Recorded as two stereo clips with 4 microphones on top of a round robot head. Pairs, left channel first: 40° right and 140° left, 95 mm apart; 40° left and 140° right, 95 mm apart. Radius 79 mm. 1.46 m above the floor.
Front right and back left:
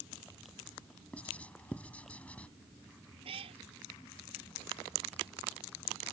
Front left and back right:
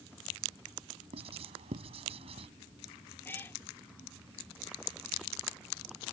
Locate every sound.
1.1 s writing: 115° right
3.2 s a cat meowing: 110° left